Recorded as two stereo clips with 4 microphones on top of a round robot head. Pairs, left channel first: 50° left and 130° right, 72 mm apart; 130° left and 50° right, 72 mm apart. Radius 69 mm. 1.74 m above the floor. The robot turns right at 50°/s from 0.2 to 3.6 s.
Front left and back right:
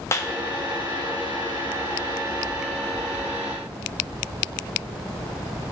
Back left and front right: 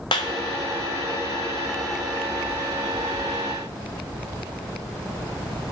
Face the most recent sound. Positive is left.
turn(degrees=-90)